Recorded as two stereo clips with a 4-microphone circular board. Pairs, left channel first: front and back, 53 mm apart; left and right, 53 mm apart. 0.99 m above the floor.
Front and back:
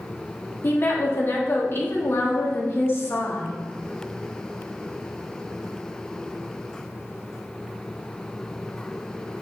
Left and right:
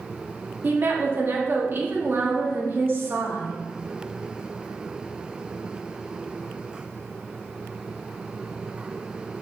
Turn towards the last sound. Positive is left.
turn(degrees=-45)